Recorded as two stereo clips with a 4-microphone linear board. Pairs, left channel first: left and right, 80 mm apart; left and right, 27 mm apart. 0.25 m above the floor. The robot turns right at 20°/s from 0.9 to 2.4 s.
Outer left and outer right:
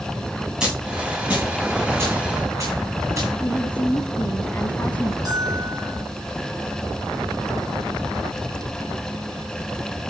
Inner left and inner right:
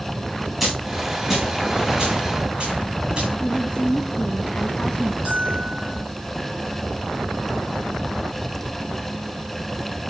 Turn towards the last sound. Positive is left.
turn(degrees=-50)  # may be behind; listen again after turning